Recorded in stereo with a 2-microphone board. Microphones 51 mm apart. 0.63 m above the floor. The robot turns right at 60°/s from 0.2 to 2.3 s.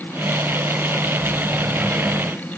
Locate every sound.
Only background noise.